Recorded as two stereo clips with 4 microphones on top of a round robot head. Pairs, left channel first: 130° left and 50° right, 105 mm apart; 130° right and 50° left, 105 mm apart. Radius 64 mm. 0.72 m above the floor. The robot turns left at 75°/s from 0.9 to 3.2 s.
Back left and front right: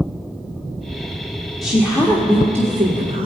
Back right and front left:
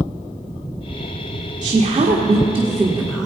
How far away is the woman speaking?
About 1.4 m.